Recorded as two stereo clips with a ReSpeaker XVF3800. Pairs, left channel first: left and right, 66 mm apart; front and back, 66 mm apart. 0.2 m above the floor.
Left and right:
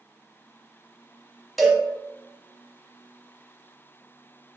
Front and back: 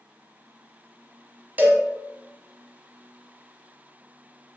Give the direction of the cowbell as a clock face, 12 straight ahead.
6 o'clock.